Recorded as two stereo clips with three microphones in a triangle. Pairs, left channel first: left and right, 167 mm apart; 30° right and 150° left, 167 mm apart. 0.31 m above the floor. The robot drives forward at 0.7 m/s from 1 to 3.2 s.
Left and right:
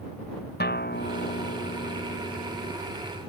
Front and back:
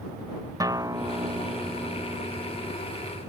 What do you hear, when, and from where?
0.6 s a guitar: 80° left; by 2.7 s 85° left